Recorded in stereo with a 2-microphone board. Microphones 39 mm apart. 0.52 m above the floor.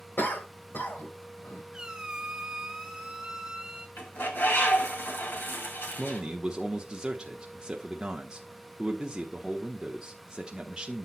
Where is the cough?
60° left (ahead or behind), 2.5 m.